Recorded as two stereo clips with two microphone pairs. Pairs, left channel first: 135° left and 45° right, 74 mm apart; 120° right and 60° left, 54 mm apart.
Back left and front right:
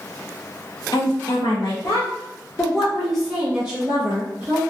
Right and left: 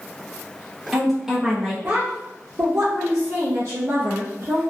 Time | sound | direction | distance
0.9 | a woman speaking | 150° left | 0.9 m